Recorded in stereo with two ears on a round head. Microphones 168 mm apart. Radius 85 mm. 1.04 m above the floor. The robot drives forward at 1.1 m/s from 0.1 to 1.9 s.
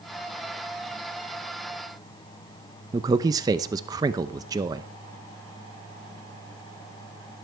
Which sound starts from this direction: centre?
A man speaking, at 2.9 s.